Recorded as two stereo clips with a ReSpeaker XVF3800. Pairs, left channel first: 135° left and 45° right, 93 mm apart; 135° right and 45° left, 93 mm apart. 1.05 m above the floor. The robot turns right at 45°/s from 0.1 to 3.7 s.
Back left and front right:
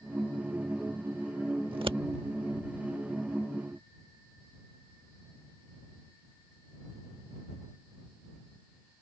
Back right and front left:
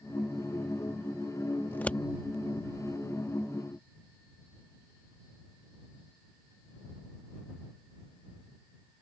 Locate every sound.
1.7 s scissors: 70° right; by 2.0 s 55° right